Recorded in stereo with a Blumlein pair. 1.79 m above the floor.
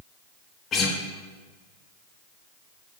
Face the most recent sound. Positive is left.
turn(degrees=30)